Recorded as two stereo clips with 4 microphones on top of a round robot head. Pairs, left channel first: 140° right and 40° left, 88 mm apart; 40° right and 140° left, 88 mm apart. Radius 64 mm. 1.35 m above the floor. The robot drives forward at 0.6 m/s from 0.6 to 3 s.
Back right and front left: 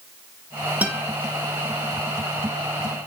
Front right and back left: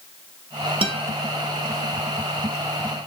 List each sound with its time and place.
0.8 s a guitar: 115° left, 1.5 m; by 1.1 s 120° left, 1.6 m